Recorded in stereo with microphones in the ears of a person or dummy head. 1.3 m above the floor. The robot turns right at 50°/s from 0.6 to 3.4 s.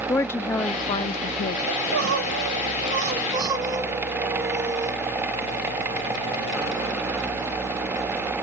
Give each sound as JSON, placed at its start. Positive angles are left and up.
{"t": 0.1, "sound": "a woman speaking", "azimuth_deg": 15, "distance_m": 0.5}
{"t": 1.7, "sound": "crying", "azimuth_deg": -110, "distance_m": 1.7}